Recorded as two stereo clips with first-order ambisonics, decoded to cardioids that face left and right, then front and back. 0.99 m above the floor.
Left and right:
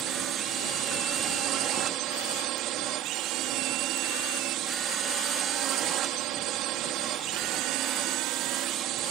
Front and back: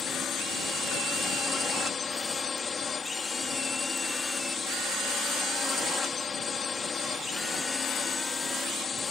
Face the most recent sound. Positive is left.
turn(degrees=-70)